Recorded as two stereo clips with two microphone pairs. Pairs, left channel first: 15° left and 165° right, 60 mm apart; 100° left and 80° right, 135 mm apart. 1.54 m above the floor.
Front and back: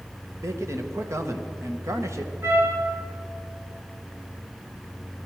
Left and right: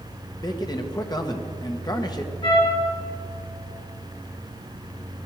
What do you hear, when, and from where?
0.4 s a man speaking: 155° left, 1.3 m
2.4 s a trumpet: 150° left, 4 m